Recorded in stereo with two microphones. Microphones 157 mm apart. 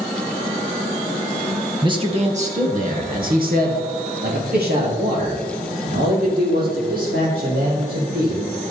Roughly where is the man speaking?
Right.